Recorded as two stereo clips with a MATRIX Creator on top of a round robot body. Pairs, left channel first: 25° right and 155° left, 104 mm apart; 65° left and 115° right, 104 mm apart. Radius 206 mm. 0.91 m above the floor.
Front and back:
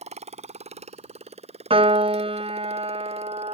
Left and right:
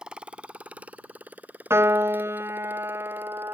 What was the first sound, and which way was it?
A motorcycle, 165° left.